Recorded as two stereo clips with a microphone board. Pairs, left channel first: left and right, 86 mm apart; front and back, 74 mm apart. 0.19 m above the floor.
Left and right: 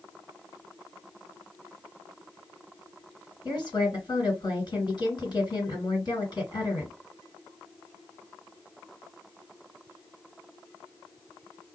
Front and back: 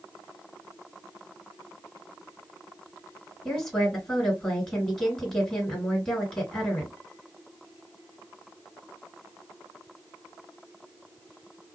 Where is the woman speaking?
85° left, 2 m.